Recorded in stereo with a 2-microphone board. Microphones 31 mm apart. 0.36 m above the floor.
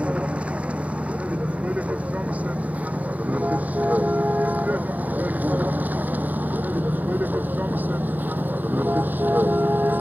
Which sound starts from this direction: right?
A vehicle, at 0.0 s.